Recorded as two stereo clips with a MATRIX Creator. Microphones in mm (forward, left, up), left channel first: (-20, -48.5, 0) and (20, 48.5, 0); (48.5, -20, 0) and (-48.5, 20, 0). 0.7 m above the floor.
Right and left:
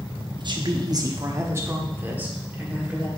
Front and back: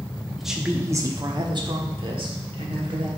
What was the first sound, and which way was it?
A woman speaking, 65° left.